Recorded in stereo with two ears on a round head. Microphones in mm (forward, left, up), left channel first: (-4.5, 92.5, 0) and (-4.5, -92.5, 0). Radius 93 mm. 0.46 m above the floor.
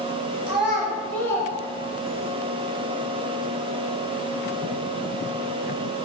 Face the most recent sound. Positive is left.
turn(degrees=60)  # may be behind; listen again after turning